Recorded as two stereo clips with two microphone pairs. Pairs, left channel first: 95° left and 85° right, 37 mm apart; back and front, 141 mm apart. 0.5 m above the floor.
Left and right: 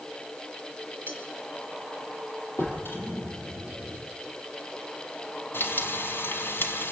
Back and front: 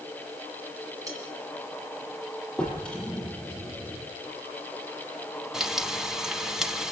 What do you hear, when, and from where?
1.1 s cutlery clinking: 65° left, 5 m
2.6 s a drawer: 95° left, 6.5 m
5.5 s frying: 85° left, 1.7 m